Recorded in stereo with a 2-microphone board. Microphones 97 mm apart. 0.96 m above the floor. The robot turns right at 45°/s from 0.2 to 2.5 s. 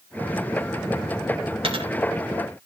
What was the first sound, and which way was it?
A dropped coin, 70° right (ahead or behind).